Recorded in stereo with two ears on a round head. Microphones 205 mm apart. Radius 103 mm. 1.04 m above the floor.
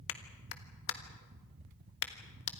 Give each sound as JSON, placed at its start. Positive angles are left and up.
{"t": 0.1, "sound": "a clap", "side_deg": 60, "distance_m": 1.5}